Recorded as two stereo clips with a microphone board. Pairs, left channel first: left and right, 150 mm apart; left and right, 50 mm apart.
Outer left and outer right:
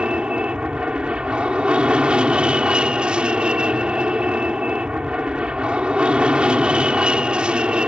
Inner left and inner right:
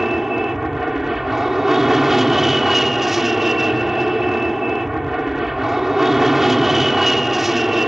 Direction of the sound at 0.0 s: 5° right (ahead or behind).